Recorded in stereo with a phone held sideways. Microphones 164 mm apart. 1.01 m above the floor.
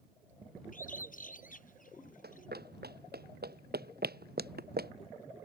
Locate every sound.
0.7 s a bird: 55° left (ahead or behind)
2.2 s running footsteps: 80° right; by 4.9 s 75° right (ahead or behind)